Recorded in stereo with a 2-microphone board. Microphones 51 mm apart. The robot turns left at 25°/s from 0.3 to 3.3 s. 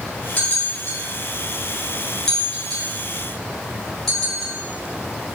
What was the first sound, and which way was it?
A bell, 35° left (ahead or behind).